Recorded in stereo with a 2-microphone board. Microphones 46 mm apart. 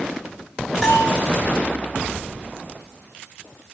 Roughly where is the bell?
Centre.